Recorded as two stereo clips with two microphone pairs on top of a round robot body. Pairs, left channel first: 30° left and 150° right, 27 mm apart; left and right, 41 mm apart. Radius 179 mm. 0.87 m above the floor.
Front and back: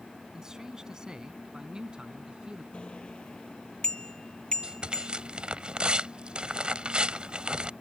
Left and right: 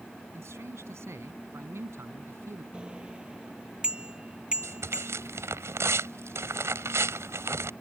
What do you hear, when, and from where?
0.3 s a man speaking: 80° right; by 2.6 s 95° right
2.7 s a bicycle bell: 25° right
4.6 s tearing paper: 95° right